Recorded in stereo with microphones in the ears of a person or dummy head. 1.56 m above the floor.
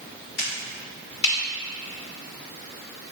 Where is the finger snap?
80° left, 2 m.